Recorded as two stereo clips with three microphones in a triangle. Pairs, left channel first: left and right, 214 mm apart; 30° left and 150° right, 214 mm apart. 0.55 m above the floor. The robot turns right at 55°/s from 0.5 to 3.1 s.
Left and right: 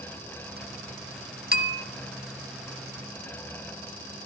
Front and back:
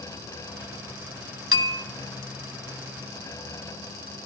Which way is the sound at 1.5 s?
135° right.